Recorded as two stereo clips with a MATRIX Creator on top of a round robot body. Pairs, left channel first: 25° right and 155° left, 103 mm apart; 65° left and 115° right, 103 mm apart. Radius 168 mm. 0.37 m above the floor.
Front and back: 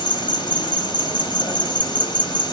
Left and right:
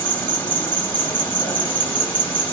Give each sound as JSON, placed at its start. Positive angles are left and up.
{"t": 0.0, "sound": "an insect", "azimuth_deg": 0, "distance_m": 1.5}